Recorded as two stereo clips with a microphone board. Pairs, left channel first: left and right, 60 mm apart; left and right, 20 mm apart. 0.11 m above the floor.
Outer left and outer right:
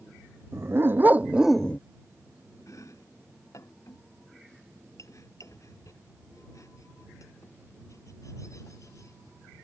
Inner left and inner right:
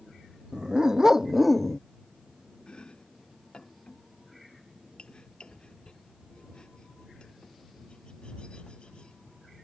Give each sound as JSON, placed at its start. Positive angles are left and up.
{"t": 0.5, "sound": "a dog barking", "side_deg": -45}
{"t": 2.7, "sound": "chopping", "side_deg": 60}